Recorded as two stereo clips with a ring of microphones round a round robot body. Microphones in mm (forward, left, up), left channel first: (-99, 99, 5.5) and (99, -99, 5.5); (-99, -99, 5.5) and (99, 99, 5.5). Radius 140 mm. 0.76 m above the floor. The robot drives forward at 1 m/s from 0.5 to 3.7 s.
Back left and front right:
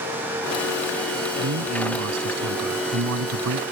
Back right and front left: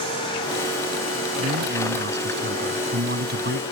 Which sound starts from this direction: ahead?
A man speaking, at 1.4 s.